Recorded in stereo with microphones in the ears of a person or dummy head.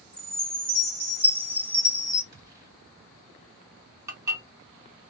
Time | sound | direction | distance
0.1 | a chime | 5° right (ahead or behind) | 1.9 m
2.3 | a gunshot | 20° right (ahead or behind) | 1.7 m
4.1 | dishes clattering | 20° right (ahead or behind) | 2.5 m